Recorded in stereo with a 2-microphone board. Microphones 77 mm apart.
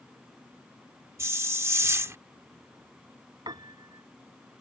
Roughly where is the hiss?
Right.